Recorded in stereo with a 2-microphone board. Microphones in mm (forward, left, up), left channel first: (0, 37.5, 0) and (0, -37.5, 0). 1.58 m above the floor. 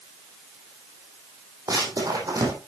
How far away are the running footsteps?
About 3.5 m.